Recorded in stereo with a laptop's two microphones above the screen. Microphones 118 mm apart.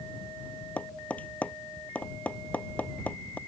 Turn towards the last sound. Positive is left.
turn(degrees=10)  # may be behind; listen again after turning